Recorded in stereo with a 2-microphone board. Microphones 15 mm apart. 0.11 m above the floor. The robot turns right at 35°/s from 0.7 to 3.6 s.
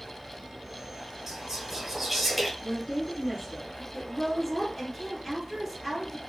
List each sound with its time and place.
1.3 s whispering: 20° right (ahead or behind), 1.2 m; by 2.5 s centre (ahead or behind), 1.2 m
2.6 s a woman speaking: 115° left, 1.9 m; by 3.8 s 150° left, 1.9 m
3.9 s a woman speaking: centre (ahead or behind), 1.3 m